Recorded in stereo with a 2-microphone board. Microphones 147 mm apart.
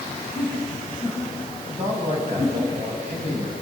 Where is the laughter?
20° right (ahead or behind), 8 m.